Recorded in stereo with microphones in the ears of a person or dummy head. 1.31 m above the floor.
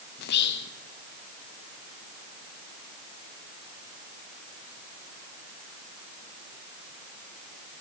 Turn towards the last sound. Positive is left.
turn(degrees=50)  # may be behind; listen again after turning